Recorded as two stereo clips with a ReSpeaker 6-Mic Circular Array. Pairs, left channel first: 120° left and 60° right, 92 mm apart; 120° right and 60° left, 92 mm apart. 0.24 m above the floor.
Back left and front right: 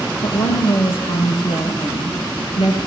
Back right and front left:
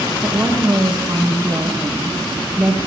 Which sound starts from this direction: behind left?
A woman speaking, at 0.2 s.